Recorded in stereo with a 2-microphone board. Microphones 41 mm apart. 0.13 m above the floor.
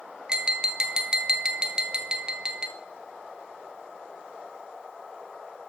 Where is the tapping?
20° right (ahead or behind), 0.7 m.